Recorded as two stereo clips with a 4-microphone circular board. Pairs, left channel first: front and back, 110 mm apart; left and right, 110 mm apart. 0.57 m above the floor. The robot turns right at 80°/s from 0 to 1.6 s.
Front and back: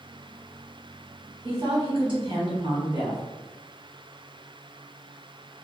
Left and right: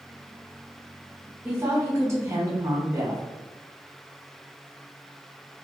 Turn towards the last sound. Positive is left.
turn(degrees=-145)